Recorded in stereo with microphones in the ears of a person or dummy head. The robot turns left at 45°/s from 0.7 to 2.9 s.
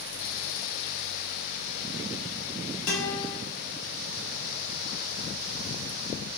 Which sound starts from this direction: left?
A guitar, at 2.9 s.